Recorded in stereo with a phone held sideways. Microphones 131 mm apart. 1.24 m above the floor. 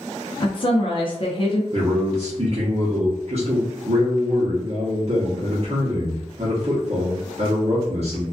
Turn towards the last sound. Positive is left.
turn(degrees=-55)  # may be behind; listen again after turning